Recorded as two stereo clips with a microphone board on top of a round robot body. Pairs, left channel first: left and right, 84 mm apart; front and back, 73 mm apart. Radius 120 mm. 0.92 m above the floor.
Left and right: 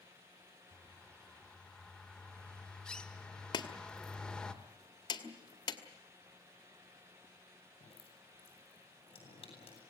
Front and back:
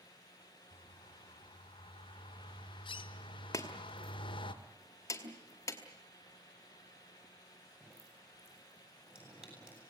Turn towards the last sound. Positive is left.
turn(degrees=100)